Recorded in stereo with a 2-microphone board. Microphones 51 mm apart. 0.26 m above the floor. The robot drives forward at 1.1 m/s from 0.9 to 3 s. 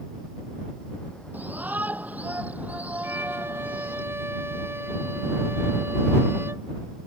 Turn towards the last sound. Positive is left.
turn(degrees=-55)  # may be behind; listen again after turning